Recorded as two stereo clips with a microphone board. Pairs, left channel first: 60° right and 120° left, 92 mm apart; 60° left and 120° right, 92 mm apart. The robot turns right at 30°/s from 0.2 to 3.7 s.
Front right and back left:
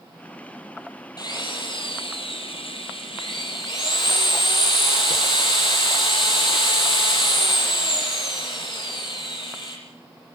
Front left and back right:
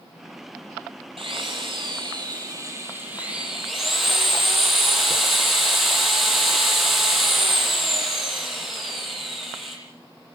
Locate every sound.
1.2 s a drill: 105° right, 8.5 m; by 9.8 s 30° right, 8.5 m